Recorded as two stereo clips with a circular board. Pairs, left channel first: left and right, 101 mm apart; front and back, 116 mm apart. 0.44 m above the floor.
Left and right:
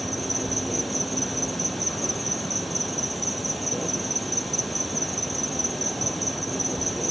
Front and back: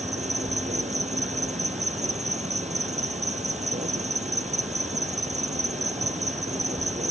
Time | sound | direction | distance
0.0 | an insect | straight behind | ?